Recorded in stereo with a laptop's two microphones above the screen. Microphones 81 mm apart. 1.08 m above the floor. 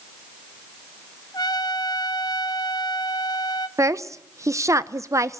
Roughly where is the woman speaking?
Right.